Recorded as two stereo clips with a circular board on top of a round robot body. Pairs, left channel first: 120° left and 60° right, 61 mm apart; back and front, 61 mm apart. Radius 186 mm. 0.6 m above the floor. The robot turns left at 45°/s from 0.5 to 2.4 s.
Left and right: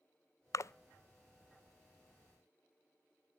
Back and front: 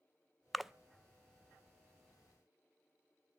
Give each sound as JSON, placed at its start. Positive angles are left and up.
{"t": 0.5, "sound": "a splash", "azimuth_deg": 90, "distance_m": 0.5}